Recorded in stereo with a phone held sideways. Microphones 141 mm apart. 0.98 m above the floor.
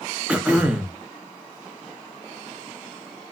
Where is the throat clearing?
10° right (ahead or behind), 0.6 m.